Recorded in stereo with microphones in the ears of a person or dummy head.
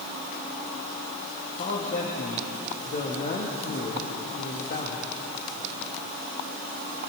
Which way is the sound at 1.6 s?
40° left (ahead or behind).